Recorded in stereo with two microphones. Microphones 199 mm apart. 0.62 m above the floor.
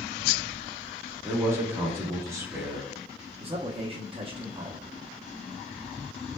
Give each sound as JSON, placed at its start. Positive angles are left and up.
{"t": 1.2, "sound": "a man speaking", "side_deg": -15, "distance_m": 1.1}
{"t": 3.4, "sound": "a man speaking", "side_deg": -30, "distance_m": 0.6}